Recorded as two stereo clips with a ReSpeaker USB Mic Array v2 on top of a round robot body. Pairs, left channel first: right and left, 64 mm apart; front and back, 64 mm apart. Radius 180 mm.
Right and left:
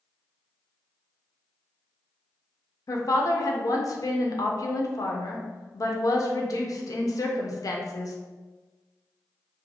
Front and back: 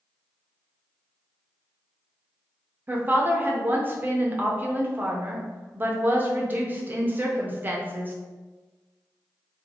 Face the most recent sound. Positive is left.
turn(degrees=-120)